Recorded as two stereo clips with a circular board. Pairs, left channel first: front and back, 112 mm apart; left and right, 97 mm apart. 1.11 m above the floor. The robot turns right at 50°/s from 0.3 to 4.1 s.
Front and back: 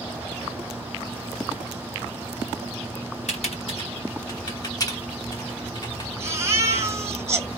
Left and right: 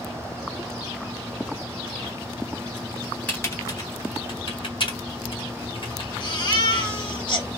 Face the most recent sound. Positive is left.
turn(degrees=120)